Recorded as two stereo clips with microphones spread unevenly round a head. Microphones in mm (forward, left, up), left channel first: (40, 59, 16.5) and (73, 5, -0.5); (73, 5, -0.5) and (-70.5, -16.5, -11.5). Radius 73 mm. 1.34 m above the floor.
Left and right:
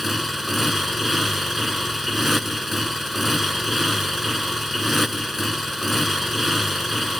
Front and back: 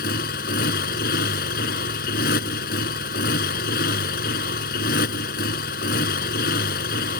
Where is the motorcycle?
35° left.